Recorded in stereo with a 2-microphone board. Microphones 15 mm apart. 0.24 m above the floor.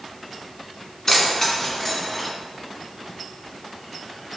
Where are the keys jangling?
25° left (ahead or behind), 1.9 m; by 2.3 s 15° left (ahead or behind), 1.4 m.